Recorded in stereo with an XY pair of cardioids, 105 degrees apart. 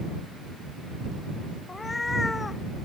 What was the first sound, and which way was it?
A cat meowing, 20° left.